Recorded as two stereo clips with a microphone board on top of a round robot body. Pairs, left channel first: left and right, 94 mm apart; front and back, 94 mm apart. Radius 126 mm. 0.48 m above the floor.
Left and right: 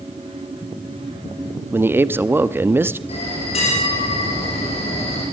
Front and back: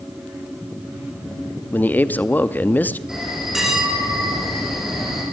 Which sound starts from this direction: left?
A bell, at 3.1 s.